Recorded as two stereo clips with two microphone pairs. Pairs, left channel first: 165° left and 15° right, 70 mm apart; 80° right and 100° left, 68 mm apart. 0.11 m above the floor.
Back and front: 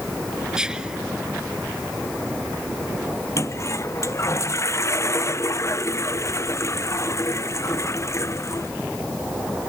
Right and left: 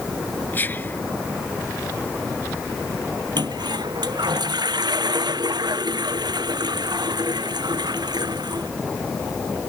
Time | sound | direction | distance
0.5 | whispering | 80° right | ?
3.4 | a toilet flushing | 115° left | ?